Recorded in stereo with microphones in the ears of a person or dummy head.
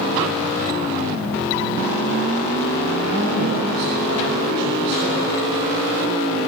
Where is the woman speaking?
65° right (ahead or behind), 7 m.